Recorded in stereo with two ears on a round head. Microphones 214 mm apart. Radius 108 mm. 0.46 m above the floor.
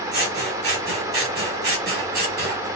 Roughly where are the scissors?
Right.